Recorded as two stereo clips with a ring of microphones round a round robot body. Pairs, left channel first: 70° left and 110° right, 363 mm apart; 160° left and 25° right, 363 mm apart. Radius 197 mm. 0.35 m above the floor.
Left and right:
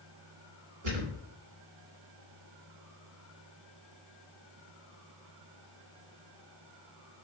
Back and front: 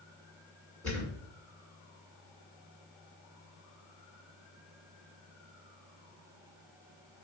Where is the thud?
115° right, 1.6 m.